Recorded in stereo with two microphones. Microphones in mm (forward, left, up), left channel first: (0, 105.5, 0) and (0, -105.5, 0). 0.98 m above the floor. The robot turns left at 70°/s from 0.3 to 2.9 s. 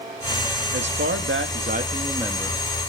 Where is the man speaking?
60° right, 2 m; by 2.6 s 170° left, 2 m.